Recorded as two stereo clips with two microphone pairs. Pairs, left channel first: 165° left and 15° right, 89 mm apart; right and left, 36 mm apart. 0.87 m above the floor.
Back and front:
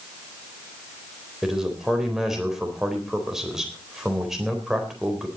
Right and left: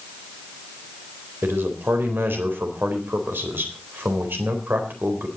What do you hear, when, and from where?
1.4 s a man speaking: 70° left, 4 m